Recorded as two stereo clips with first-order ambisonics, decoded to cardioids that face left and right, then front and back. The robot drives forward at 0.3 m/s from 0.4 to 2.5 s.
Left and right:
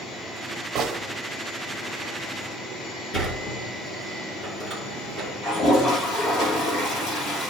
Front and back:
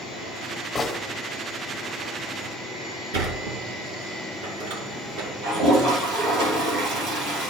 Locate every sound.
0.8 s a gunshot: 70° right, 1.1 m; by 1.0 s 75° right, 1.1 m
3.1 s a sliding door: 175° right, 2.5 m
5.4 s a toilet flushing: 135° left, 4 m